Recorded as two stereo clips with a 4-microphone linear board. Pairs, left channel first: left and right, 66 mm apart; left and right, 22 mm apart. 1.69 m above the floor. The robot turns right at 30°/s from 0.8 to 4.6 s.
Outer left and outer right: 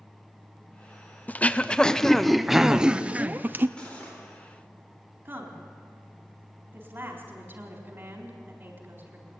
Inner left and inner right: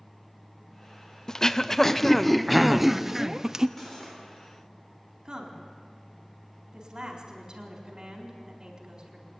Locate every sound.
1.3 s throat clearing: 145° left, 0.6 m; by 3.7 s 140° right, 0.6 m
3.8 s cutlery clinking: 15° left (ahead or behind), 3.5 m; by 4.2 s 30° left (ahead or behind), 3.5 m
5.2 s a woman speaking: 30° right (ahead or behind), 4 m